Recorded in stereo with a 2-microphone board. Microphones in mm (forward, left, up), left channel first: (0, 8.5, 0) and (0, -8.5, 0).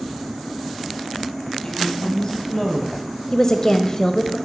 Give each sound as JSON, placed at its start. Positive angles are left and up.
{"t": 1.6, "sound": "a woman speaking", "side_deg": 55, "distance_m": 2.0}
{"t": 3.3, "sound": "a woman speaking", "side_deg": 35, "distance_m": 1.0}